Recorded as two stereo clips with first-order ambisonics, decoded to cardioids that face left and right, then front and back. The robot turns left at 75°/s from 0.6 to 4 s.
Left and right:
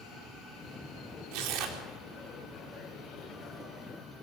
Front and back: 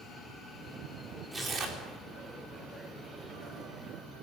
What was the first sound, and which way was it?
Tearing paper, 100° right.